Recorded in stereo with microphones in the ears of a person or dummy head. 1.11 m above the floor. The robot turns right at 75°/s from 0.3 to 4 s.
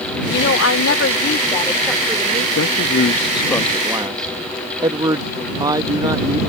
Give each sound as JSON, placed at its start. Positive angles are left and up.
{"t": 0.3, "sound": "a woman speaking", "azimuth_deg": 60}
{"t": 2.5, "sound": "a man speaking", "azimuth_deg": 95}